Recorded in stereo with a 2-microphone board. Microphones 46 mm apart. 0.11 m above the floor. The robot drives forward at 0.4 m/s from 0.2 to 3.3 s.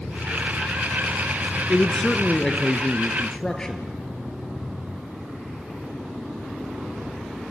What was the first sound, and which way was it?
A man speaking, 20° left (ahead or behind).